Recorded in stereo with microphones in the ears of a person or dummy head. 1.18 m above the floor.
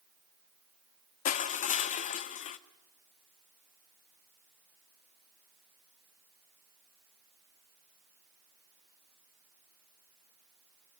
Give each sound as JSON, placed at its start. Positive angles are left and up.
{"t": 1.2, "sound": "crushing", "side_deg": 45, "distance_m": 1.2}